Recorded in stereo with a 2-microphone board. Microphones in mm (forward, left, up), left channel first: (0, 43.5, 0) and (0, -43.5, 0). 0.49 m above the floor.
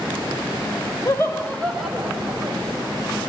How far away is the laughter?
About 1.5 m.